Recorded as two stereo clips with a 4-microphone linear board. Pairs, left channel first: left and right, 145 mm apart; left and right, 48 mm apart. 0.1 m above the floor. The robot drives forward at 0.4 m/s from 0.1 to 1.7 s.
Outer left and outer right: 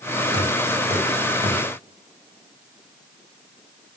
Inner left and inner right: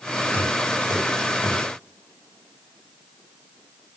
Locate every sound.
0.3 s knocking: 50° left (ahead or behind), 4 m; by 1.6 s 45° left (ahead or behind), 4.5 m